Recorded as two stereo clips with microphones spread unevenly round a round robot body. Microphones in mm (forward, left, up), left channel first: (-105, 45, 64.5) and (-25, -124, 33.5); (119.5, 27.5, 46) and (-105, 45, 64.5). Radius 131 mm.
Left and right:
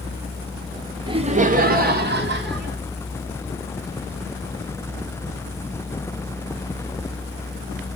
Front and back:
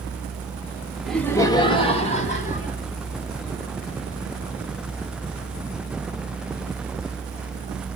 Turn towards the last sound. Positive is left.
turn(degrees=-60)